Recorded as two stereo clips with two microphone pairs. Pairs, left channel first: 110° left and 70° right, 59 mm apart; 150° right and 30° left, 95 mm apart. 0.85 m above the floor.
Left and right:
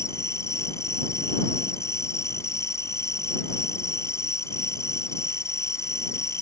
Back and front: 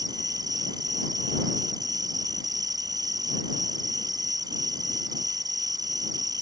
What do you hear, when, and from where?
0.0 s an insect: 75° left